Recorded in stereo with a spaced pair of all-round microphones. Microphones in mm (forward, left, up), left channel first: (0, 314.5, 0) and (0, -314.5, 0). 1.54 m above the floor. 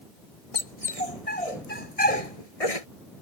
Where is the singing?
No singing in this recording.